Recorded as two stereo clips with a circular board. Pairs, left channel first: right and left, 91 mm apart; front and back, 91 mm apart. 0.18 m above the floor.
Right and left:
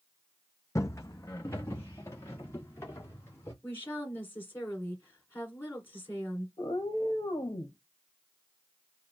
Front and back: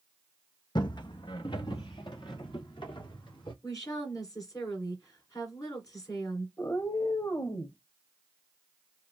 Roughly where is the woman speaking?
Ahead right.